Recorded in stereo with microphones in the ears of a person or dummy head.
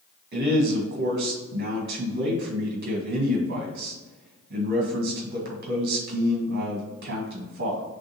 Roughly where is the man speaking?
Right.